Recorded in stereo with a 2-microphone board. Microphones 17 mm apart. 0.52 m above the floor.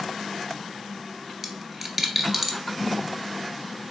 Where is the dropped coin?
15° right (ahead or behind), 0.5 m.